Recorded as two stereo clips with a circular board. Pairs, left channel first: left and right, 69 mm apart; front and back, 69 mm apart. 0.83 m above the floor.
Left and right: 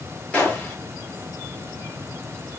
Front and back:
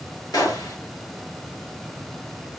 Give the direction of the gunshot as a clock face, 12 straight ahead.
11 o'clock.